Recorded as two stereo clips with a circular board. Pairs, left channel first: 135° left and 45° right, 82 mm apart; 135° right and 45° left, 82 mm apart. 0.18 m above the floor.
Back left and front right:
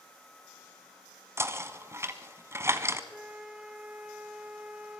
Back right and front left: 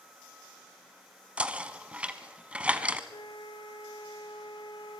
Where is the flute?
120° right, 1.5 m.